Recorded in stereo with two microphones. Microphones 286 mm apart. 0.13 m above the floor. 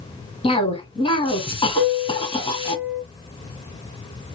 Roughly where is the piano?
Centre.